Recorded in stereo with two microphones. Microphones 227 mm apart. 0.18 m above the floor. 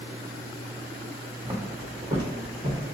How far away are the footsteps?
About 1.1 m.